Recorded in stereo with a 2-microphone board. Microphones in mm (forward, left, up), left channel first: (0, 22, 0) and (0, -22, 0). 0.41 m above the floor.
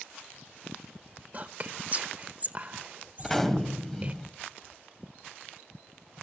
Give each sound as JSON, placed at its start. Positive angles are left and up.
{"t": 1.3, "sound": "whispering", "side_deg": -35, "distance_m": 1.1}
{"t": 3.2, "sound": "a gunshot", "side_deg": 10, "distance_m": 1.8}